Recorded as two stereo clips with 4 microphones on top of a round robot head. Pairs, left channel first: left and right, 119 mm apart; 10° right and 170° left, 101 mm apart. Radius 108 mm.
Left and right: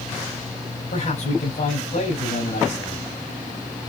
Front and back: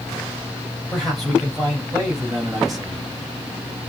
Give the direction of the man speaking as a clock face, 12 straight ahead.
9 o'clock.